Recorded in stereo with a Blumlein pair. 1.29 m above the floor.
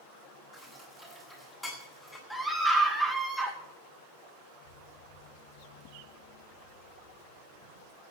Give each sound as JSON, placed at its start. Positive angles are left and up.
{"t": 0.5, "sound": "dishes clattering", "azimuth_deg": 5, "distance_m": 8.5}
{"t": 2.3, "sound": "a scream", "azimuth_deg": 0, "distance_m": 2.5}
{"t": 4.6, "sound": "an explosion", "azimuth_deg": -65, "distance_m": 5.0}